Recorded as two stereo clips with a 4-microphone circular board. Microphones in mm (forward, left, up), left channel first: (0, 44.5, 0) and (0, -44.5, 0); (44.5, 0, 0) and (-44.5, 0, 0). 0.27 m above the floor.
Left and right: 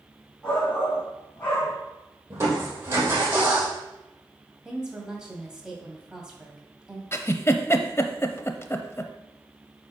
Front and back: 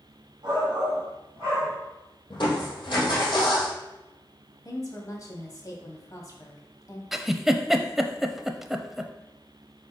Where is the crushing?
30° right, 3.5 m.